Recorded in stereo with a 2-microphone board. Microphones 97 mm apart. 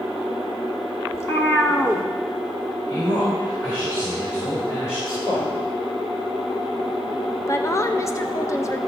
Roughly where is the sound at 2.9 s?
Left.